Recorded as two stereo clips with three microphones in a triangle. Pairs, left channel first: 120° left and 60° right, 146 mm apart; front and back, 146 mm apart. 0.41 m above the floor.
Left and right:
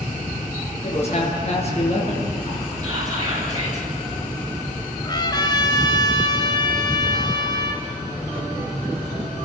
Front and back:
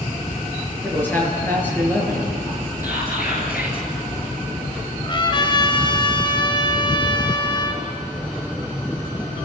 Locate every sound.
0.8 s a man speaking: 75° left, 6.5 m
2.8 s whispering: 5° left, 6.5 m
5.0 s a trumpet: 60° left, 2 m